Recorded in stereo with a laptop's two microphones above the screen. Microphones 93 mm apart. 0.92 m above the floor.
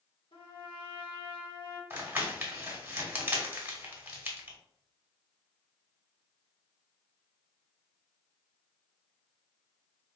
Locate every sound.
0.3 s a trumpet: 80° left, 1.2 m
1.9 s crumpling: 20° right (ahead or behind), 1.5 m